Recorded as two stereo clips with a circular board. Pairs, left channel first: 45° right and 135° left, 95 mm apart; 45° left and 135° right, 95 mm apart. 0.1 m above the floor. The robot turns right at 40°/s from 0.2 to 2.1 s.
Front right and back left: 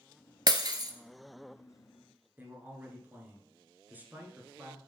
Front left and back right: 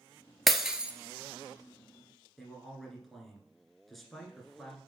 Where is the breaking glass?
135° left, 0.8 m; by 0.9 s 155° left, 0.8 m.